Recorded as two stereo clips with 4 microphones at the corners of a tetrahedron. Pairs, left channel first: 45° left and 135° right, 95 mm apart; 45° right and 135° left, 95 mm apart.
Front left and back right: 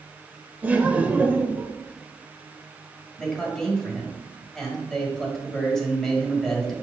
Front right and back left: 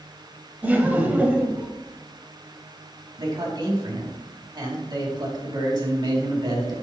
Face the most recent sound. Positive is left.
turn(degrees=130)